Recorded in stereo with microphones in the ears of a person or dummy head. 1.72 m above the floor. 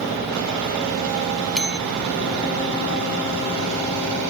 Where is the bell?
Centre (ahead or behind).